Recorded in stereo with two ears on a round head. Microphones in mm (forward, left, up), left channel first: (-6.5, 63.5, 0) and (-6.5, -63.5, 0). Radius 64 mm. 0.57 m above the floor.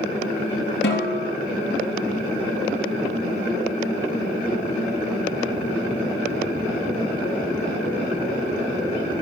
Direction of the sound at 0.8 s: 85° left.